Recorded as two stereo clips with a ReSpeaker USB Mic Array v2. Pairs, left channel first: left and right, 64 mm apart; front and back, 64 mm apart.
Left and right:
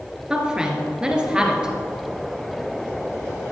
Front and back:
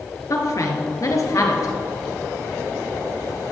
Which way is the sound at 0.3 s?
15° right.